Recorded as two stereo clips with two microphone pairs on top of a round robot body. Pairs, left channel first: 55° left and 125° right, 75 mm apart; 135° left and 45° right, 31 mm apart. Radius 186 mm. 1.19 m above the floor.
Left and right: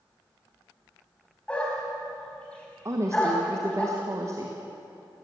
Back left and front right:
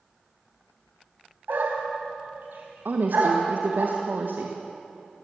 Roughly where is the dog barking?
Ahead.